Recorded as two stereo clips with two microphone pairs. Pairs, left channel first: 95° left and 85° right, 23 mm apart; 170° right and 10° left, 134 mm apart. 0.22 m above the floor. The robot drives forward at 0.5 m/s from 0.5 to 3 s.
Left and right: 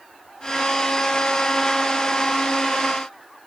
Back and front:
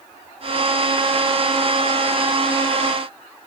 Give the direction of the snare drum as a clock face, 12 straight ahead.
I don't hear a snare drum.